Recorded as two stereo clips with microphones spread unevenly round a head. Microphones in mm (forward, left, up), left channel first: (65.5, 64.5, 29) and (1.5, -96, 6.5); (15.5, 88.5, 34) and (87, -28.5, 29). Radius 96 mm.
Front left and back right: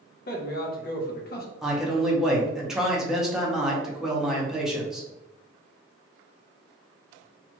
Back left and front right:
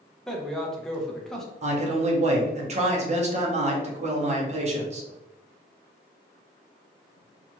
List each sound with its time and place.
0.3 s a man speaking: 35° left, 0.8 m
1.6 s a man speaking: 20° right, 0.9 m